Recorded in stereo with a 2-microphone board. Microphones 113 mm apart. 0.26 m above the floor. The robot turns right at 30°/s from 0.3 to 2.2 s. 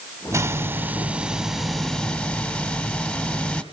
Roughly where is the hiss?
Ahead right.